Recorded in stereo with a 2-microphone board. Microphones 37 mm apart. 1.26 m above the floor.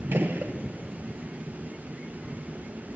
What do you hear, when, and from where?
0.1 s a gunshot: 65° right (ahead or behind), 1.0 m